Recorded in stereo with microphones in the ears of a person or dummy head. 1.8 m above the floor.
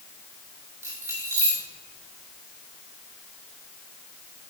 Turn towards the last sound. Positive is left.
turn(degrees=-15)  # may be behind; listen again after turning